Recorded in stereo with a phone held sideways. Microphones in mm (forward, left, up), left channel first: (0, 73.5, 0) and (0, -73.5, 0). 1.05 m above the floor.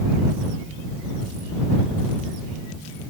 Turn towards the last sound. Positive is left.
No sound to turn to.